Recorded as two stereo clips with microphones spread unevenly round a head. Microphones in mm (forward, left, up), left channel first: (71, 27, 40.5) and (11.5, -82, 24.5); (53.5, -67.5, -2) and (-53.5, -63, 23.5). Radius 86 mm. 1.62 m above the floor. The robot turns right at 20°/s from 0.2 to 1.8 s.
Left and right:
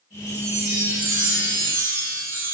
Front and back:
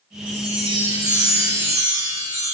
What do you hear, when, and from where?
0.3 s a chime: 150° right, 2 m; by 2.5 s 120° right, 2 m